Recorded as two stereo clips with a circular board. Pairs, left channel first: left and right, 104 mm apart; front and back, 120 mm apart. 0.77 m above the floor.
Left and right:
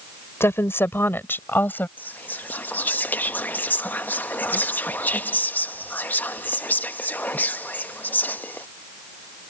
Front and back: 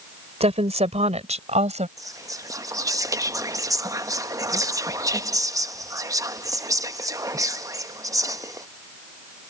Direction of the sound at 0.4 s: 155° left.